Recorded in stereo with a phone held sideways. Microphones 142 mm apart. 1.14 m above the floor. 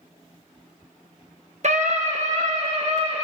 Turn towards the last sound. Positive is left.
turn(degrees=-50)  # may be behind; listen again after turning